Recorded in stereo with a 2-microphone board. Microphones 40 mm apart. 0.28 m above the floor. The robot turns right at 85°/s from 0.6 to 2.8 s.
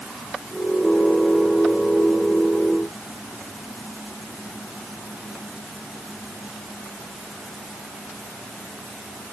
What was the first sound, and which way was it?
Only background noise.